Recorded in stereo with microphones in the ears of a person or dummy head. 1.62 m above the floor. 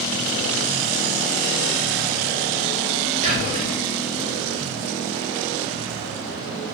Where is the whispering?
40° right (ahead or behind), 1.0 m.